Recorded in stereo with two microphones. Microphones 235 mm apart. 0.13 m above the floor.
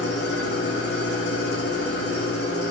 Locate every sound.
0.0 s an engine running: 70° left (ahead or behind), 5.5 m